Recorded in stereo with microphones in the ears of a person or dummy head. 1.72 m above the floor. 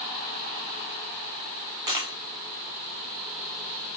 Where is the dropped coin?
20° right (ahead or behind), 1.3 m.